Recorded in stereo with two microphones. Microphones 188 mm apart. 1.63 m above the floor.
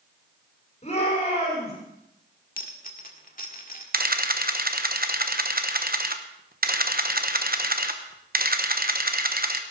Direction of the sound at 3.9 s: 55° right (ahead or behind).